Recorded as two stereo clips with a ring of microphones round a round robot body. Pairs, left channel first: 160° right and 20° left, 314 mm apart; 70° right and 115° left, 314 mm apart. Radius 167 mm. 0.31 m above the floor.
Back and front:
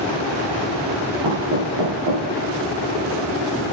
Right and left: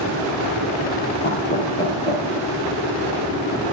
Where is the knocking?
5° right, 5 m.